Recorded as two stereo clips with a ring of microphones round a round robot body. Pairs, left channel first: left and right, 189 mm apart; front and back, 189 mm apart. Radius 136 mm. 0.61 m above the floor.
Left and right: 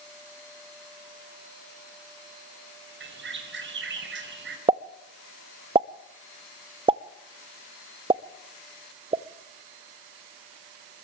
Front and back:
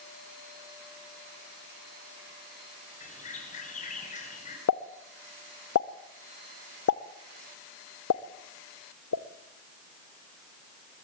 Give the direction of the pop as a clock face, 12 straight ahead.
1 o'clock.